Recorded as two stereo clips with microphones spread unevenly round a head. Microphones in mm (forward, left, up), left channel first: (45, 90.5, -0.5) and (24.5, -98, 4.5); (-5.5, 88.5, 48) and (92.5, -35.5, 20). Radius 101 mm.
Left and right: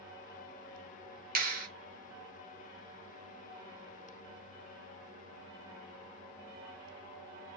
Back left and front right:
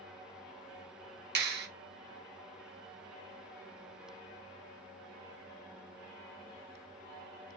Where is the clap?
50° right, 0.8 m.